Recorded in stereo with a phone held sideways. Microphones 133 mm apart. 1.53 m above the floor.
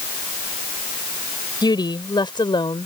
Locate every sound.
1.6 s a woman speaking: 35° left (ahead or behind); by 2.9 s 40° left (ahead or behind)